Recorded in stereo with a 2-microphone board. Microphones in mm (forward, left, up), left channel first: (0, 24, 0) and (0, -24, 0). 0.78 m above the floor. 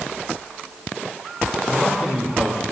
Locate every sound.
1.7 s a man speaking: 25° right (ahead or behind), 3 m